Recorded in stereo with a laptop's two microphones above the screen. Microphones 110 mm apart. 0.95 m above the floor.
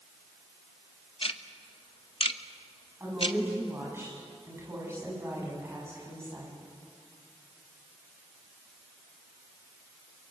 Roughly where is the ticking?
Left.